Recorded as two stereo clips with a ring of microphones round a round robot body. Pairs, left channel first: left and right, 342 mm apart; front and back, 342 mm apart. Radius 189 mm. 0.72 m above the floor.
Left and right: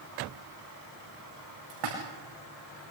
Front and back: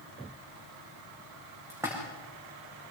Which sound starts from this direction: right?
A splash, at 1.7 s.